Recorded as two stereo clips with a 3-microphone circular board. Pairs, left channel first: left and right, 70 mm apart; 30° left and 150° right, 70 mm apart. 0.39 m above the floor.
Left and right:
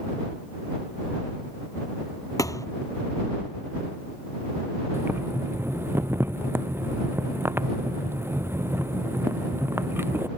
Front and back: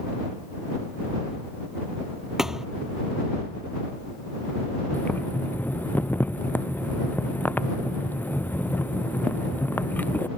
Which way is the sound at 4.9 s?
35° right.